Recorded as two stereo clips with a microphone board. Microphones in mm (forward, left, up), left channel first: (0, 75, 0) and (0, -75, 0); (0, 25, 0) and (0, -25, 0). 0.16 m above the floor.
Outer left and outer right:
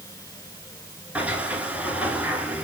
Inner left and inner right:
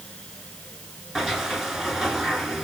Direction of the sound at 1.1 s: 10° right (ahead or behind).